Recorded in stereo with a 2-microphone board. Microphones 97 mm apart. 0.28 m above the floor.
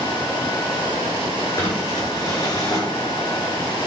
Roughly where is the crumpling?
Left.